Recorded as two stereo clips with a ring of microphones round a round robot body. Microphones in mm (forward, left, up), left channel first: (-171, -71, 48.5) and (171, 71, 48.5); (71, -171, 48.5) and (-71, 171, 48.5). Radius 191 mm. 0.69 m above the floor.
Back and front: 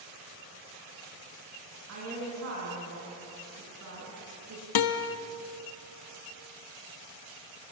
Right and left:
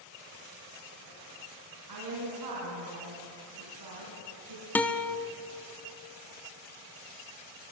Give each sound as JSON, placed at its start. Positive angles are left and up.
{"t": 1.9, "sound": "a woman speaking", "azimuth_deg": 75, "distance_m": 6.5}
{"t": 4.8, "sound": "a guitar", "azimuth_deg": -155, "distance_m": 1.1}